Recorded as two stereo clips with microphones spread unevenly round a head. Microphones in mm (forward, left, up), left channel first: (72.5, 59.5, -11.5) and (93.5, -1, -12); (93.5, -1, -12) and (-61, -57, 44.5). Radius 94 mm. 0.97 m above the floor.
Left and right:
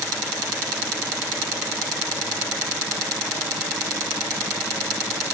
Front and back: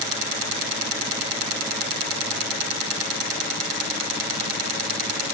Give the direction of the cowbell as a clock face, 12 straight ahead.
I don't hear a cowbell.